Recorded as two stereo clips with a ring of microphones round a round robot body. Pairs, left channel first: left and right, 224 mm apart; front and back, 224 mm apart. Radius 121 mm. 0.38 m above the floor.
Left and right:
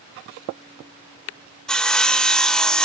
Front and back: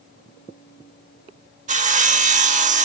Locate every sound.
1.7 s sawing: 175° left, 0.9 m